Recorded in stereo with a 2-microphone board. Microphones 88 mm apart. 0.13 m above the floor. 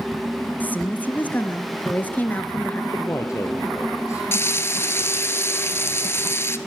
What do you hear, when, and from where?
0.6 s a woman speaking: 20° left (ahead or behind), 2 m
2.9 s a man speaking: 30° left (ahead or behind), 2 m
4.3 s frying: 30° left (ahead or behind), 1.5 m